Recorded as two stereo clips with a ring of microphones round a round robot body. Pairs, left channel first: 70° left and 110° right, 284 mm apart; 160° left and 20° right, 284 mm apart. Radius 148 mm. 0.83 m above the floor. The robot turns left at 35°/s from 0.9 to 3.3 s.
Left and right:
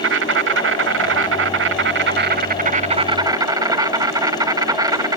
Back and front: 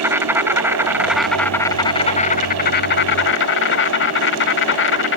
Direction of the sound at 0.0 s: 100° right.